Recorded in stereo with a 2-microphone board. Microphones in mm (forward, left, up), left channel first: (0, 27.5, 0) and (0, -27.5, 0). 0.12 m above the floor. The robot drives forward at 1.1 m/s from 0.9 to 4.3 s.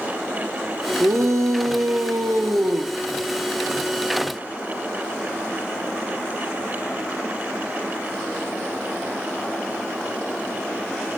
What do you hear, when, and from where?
1.0 s a shout: 65° right (ahead or behind), 3 m; by 2.9 s 60° right (ahead or behind), 3 m